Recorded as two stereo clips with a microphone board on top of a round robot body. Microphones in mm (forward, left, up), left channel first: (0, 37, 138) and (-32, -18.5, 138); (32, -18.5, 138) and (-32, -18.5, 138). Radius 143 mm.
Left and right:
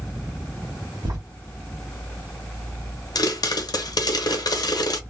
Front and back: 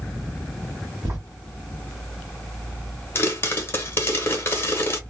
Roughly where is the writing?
Behind right.